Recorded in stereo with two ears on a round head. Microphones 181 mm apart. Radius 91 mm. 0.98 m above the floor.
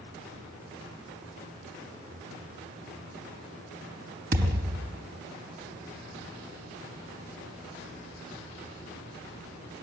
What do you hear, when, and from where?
4.3 s a thud: 45° right (ahead or behind), 4 m